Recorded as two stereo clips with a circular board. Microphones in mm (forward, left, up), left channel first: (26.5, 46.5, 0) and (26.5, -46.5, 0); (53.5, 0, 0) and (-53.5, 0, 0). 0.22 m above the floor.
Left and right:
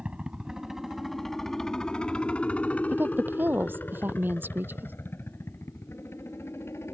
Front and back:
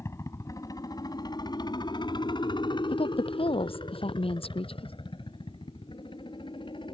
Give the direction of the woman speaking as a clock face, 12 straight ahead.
1 o'clock.